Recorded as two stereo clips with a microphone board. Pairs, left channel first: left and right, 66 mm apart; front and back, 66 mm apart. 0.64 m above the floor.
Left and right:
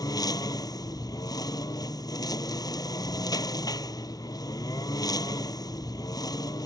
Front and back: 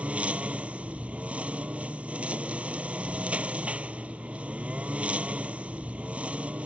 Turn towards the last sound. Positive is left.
turn(degrees=105)